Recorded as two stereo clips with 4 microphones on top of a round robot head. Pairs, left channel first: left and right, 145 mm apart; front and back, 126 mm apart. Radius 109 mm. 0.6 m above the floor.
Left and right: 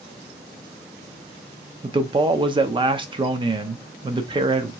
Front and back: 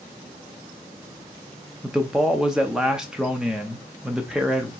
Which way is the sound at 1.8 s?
95° right.